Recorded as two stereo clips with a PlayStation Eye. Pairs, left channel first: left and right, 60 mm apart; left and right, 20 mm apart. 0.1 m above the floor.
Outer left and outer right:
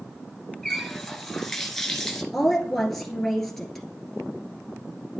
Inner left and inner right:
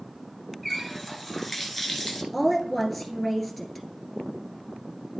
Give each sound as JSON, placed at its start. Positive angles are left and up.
{"t": 0.6, "sound": "a running tap", "side_deg": 5, "distance_m": 1.0}
{"t": 2.3, "sound": "a woman speaking", "side_deg": 5, "distance_m": 1.6}